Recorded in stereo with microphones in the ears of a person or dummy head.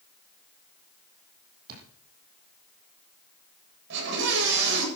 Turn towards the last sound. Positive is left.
turn(degrees=-65)  # may be behind; listen again after turning